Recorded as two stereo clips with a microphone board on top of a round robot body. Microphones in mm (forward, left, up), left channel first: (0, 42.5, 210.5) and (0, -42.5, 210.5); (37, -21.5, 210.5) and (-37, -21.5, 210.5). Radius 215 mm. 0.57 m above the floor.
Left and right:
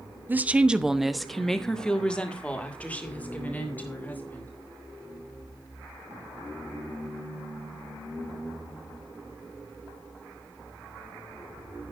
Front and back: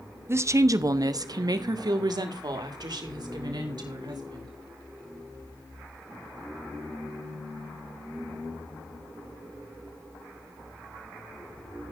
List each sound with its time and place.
0.3 s a woman speaking: 145° right, 1.1 m; by 4.5 s 160° left, 3.5 m